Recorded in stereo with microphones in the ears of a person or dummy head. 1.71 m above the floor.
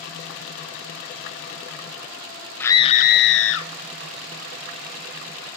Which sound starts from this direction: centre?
A scream, at 2.6 s.